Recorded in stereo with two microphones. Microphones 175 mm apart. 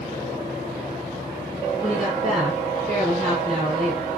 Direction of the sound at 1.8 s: Centre (ahead or behind).